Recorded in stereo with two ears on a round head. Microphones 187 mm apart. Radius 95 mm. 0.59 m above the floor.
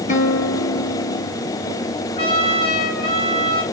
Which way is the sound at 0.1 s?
40° left (ahead or behind).